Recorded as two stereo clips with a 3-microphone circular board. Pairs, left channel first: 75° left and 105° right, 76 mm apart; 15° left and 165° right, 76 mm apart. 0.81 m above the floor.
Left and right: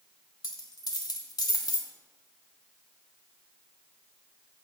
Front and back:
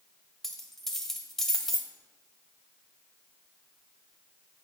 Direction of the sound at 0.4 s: 100° left.